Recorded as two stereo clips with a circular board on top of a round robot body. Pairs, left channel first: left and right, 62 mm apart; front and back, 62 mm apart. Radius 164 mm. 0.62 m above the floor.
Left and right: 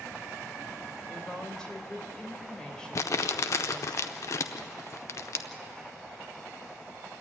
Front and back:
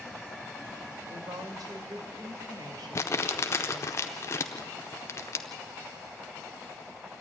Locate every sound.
1.1 s a woman speaking: 170° left, 3 m
3.0 s crumpling: 50° left, 0.5 m